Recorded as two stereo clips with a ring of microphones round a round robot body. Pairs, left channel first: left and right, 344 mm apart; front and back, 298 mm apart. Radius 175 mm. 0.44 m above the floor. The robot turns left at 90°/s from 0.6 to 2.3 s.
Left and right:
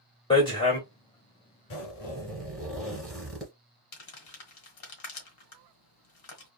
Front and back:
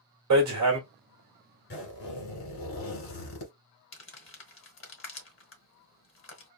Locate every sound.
0.3 s hammering: 165° left, 2 m; by 0.8 s 150° left, 2 m
1.7 s a zipper: 55° left, 2 m; by 3.5 s straight ahead, 2 m
3.9 s crumpling: 50° left, 1.5 m